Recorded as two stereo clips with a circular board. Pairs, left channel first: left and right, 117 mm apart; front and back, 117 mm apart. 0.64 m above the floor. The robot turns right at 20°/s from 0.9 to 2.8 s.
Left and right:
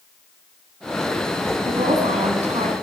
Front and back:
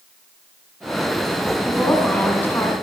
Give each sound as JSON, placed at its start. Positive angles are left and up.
{"t": 1.6, "sound": "a woman speaking", "azimuth_deg": -90, "distance_m": 6.0}